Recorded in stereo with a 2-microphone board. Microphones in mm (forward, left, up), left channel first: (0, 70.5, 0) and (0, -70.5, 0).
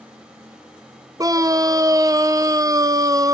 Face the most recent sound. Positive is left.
turn(degrees=-25)  # may be behind; listen again after turning